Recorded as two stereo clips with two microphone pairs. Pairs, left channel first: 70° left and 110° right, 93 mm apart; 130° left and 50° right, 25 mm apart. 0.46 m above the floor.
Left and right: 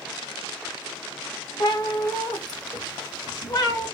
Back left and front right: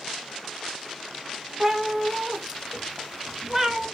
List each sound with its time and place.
1.6 s a cat meowing: 25° left, 0.7 m